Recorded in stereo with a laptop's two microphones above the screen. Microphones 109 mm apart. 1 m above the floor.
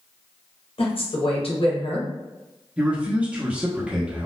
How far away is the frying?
I don't hear frying.